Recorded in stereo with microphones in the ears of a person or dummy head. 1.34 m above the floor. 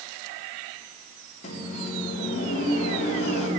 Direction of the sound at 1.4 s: 45° left (ahead or behind).